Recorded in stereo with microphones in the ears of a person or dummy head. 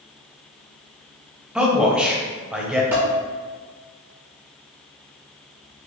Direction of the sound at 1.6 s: 5° right (ahead or behind).